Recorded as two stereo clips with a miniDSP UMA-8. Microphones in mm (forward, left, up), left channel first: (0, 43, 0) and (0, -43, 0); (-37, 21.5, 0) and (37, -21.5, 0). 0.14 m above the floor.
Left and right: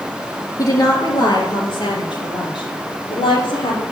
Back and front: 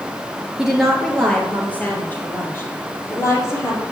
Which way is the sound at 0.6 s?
55° left.